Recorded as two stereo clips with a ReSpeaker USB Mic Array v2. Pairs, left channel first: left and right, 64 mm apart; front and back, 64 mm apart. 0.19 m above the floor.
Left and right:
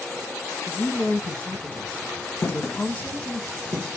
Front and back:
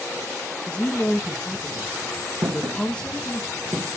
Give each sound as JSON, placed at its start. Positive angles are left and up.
{"t": 0.7, "sound": "a woman speaking", "azimuth_deg": 55, "distance_m": 1.2}
{"t": 2.4, "sound": "footsteps", "azimuth_deg": 140, "distance_m": 1.1}